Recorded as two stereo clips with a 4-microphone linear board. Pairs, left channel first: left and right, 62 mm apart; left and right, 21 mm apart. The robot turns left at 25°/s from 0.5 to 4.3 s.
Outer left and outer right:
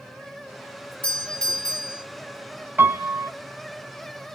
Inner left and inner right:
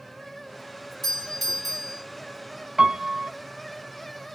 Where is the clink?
I don't hear a clink.